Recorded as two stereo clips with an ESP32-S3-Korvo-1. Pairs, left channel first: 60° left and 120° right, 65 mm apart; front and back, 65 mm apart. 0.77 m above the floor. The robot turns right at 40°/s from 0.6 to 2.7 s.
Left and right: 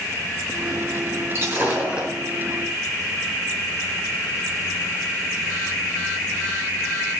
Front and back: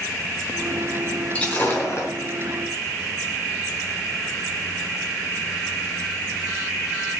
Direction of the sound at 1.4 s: 75° right.